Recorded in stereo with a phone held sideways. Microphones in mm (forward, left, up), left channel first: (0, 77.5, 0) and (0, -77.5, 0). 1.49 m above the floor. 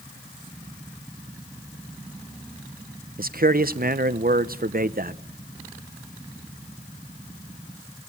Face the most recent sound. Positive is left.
turn(degrees=-70)  # may be behind; listen again after turning